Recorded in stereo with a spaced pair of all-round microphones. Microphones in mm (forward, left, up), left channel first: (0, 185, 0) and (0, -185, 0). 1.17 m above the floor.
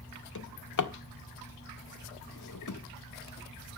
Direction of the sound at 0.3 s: 55° left (ahead or behind).